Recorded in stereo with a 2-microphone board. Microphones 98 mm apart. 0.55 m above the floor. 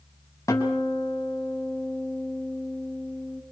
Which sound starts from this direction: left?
A guitar, at 0.5 s.